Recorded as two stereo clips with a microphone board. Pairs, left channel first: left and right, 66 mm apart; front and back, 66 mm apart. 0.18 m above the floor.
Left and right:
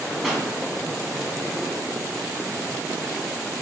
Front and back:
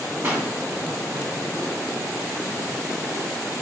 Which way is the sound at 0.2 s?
Straight behind.